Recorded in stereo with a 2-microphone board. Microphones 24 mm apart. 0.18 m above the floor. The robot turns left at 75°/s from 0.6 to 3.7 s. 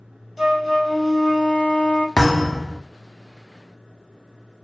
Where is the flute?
175° right, 0.5 m; by 2.1 s 75° left, 0.5 m.